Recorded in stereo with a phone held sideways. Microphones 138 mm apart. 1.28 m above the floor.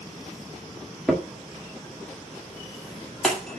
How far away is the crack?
About 1.9 m.